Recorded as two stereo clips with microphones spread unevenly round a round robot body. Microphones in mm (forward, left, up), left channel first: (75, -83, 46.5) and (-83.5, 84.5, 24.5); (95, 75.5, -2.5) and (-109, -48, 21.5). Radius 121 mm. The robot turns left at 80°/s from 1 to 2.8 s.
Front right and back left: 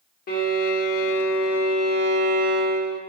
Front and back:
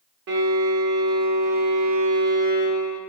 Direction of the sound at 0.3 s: 100° right.